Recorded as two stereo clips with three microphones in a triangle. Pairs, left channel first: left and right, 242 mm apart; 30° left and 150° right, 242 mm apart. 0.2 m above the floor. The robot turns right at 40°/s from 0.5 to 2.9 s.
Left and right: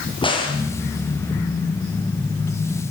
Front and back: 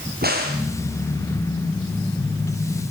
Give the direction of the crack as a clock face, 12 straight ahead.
7 o'clock.